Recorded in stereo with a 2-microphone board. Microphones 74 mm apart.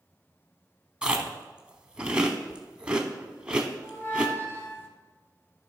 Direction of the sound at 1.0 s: 10° right (ahead or behind).